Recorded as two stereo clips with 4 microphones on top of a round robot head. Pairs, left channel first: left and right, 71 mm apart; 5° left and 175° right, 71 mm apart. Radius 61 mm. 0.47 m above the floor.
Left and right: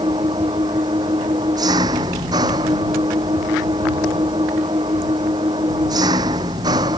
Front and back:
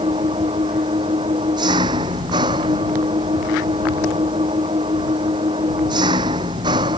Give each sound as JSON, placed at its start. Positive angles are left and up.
{"t": 0.0, "sound": "an engine running", "azimuth_deg": -135}